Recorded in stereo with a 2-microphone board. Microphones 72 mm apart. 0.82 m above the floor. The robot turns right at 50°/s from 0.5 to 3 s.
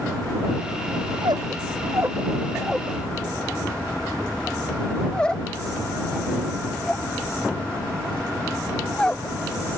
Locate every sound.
1.1 s a squeak: 80° right; by 9.4 s 10° left (ahead or behind)